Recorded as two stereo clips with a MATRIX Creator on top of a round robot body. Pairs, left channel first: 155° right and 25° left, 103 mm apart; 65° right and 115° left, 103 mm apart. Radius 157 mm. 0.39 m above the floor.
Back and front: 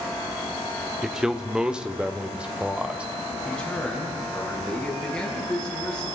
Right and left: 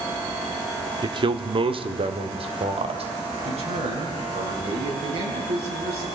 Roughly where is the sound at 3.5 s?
Behind left.